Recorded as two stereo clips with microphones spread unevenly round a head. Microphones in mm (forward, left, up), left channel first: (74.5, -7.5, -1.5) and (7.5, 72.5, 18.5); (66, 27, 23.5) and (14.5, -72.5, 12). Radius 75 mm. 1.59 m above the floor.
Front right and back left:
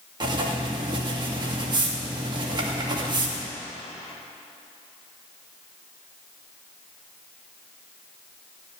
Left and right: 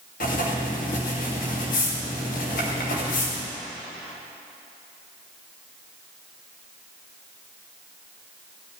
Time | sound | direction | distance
0.2 | writing | 90° left | 2.5 m